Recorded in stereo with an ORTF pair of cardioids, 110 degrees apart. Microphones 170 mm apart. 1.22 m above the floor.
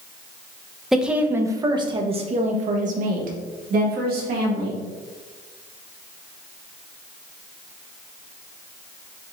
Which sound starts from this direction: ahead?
A woman speaking, at 0.9 s.